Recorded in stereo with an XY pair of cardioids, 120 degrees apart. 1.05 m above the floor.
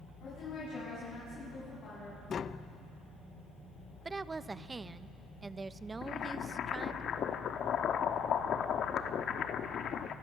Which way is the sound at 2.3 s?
45° left.